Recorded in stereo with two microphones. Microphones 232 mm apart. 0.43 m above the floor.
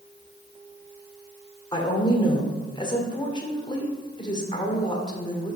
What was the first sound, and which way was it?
A woman speaking, 20° left (ahead or behind).